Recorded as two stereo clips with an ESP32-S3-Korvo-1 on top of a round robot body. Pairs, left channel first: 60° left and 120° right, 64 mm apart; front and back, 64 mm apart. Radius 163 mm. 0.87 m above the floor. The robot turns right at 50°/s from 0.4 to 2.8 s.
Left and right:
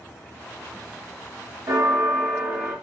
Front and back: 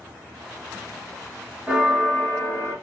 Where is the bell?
110° right, 1.4 m; by 2.8 s 55° right, 1.4 m.